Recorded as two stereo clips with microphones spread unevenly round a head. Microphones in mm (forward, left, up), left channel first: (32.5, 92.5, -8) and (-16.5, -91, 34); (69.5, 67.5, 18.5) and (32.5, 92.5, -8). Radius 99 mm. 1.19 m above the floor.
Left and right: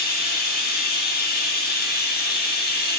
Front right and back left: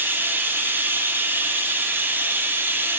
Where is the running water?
80° left, 0.8 m.